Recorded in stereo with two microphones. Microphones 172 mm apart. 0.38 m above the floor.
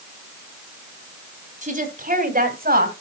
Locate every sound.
1.6 s a woman speaking: 45° right (ahead or behind), 3 m; by 2.9 s 60° right (ahead or behind), 2.5 m